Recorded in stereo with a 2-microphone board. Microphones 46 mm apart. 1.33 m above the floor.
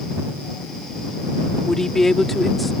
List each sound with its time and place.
1.7 s a woman speaking: 10° left (ahead or behind); by 2.7 s centre (ahead or behind)